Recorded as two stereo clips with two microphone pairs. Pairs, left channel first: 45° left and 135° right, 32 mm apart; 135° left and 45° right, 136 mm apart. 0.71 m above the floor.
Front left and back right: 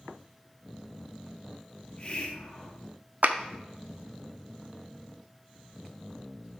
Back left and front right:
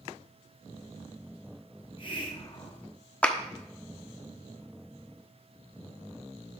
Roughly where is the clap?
Behind right.